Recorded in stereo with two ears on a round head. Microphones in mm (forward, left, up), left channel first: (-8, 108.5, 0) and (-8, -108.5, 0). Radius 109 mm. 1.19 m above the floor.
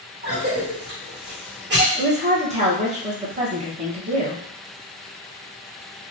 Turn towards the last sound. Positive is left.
turn(degrees=-30)  # may be behind; listen again after turning